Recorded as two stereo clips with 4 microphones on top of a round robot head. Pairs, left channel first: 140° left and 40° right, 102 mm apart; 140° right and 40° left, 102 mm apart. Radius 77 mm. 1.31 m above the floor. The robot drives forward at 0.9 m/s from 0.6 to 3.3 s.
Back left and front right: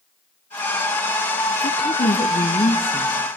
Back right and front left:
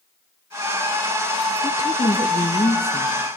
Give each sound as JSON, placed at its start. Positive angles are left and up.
{"t": 1.6, "sound": "a woman speaking", "azimuth_deg": 160, "distance_m": 1.1}